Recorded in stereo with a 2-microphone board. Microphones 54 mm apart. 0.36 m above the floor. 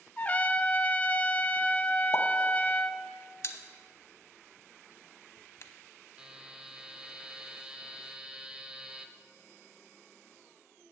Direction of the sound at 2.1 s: 65° left (ahead or behind).